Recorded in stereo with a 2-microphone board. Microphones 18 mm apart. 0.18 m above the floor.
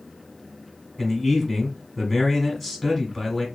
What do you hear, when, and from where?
1.0 s a man speaking: centre (ahead or behind), 1.3 m